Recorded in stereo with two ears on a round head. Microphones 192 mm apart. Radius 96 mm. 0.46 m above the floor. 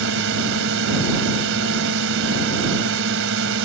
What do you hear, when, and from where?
0.0 s a drone: 65° right (ahead or behind)